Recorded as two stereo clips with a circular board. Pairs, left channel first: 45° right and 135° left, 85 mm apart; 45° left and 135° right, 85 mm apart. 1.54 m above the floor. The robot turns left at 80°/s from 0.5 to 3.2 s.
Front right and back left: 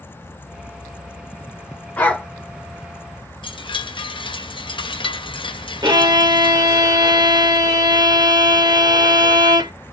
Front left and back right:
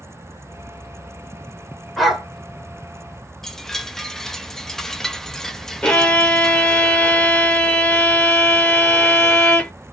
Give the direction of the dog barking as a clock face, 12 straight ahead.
2 o'clock.